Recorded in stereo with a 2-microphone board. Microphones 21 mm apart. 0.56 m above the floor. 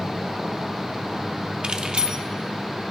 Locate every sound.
1.6 s keys jangling: 45° right (ahead or behind), 0.8 m